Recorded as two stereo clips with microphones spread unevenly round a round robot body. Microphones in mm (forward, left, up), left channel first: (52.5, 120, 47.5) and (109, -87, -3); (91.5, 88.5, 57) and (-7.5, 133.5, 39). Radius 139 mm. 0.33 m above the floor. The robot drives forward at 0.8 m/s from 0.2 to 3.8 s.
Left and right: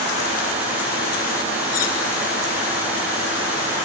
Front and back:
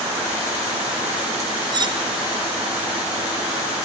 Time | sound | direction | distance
1.7 | cutlery clinking | 105° left | 2.5 m